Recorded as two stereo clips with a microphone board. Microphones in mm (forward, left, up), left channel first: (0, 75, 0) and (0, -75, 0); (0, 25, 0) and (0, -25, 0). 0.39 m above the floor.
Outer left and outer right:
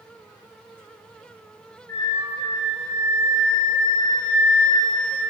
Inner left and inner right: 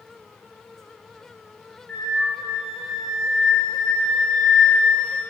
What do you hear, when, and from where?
1.9 s a flute: 20° left (ahead or behind), 0.5 m